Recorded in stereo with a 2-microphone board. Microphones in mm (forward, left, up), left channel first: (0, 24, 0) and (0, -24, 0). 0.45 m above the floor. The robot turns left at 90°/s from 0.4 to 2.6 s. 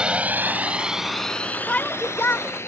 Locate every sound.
0.0 s a drone: 20° right (ahead or behind); by 2.7 s 65° left (ahead or behind)
1.7 s a shout: 145° left; by 2.5 s 70° left